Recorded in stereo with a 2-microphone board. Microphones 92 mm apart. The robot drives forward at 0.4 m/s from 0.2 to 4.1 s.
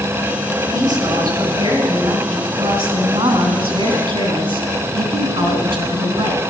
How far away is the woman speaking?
About 4 m.